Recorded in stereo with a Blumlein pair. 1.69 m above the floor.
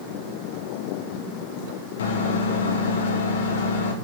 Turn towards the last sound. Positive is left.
turn(degrees=60)